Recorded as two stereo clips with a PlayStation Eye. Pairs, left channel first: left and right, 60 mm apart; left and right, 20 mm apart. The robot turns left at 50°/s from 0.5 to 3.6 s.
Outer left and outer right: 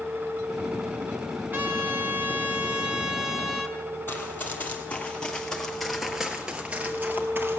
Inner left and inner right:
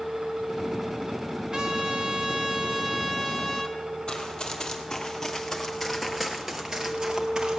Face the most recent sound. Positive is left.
turn(degrees=-45)  # may be behind; listen again after turning